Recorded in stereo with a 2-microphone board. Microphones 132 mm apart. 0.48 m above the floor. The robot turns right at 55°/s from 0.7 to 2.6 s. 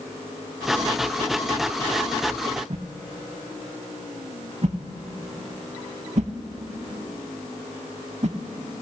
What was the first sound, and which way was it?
A whoosh, 60° right (ahead or behind).